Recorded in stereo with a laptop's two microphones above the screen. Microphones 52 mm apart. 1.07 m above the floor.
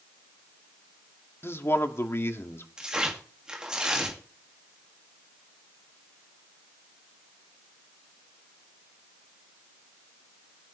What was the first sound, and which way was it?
A man speaking, 50° left (ahead or behind).